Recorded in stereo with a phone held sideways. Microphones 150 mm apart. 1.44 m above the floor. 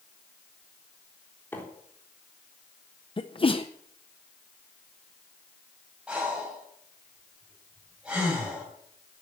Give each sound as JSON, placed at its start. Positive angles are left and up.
{"t": 1.5, "sound": "a microwave", "side_deg": 15, "distance_m": 3.5}
{"t": 3.2, "sound": "a sneeze", "side_deg": 35, "distance_m": 0.6}
{"t": 6.1, "sound": "breathing", "side_deg": -5, "distance_m": 6.0}